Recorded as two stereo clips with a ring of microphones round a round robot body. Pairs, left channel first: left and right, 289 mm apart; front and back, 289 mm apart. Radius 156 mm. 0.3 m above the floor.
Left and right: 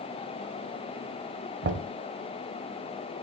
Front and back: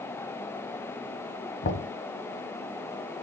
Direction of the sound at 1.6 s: 50° right.